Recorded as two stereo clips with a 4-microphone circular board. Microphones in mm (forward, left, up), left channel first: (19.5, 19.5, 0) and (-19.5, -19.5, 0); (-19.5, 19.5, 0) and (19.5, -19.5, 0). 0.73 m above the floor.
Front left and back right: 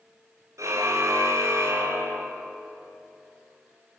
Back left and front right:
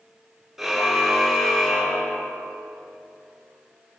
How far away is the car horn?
About 5.5 m.